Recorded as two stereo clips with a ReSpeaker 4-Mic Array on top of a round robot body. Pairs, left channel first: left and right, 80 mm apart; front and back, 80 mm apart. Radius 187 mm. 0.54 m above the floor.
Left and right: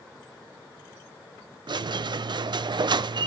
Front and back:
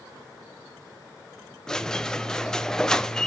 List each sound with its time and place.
1.7 s a squeak: 80° right, 0.5 m